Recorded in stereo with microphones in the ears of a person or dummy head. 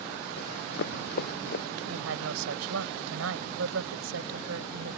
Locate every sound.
0.4 s running footsteps: 60° left (ahead or behind)
1.9 s a woman speaking: 80° right